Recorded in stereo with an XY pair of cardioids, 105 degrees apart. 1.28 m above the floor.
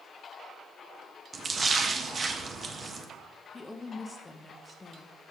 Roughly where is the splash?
Ahead right.